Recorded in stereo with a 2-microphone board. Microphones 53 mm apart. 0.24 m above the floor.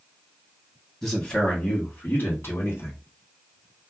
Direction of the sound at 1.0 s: 10° left (ahead or behind).